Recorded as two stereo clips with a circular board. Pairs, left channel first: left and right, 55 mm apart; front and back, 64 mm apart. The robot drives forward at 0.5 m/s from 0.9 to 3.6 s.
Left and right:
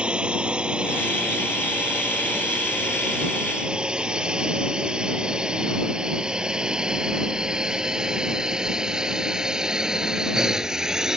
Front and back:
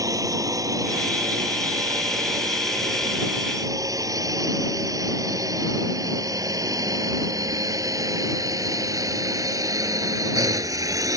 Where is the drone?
160° right; by 11.2 s 170° right.